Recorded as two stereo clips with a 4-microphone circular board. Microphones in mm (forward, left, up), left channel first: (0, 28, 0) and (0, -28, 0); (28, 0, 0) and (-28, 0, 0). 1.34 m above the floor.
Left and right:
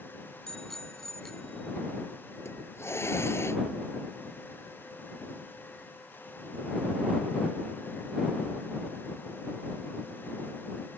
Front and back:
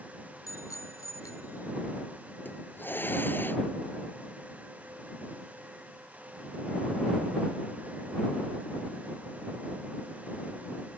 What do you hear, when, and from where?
0.5 s a bicycle bell: 5° left
2.5 s a hiss: 50° left